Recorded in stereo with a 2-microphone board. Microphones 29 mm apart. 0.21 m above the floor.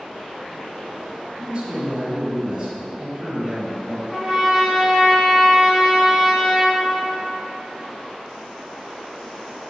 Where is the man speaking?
20° right (ahead or behind), 1.5 m.